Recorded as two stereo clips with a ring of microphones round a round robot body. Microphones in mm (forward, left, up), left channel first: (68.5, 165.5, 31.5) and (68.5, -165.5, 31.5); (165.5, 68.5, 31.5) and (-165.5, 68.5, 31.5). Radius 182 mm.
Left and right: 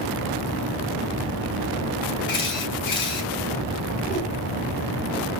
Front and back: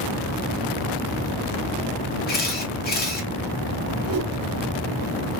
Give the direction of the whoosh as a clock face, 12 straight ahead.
7 o'clock.